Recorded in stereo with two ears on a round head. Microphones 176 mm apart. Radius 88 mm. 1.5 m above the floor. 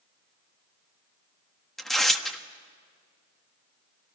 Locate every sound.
1.8 s tearing paper: centre (ahead or behind), 1.4 m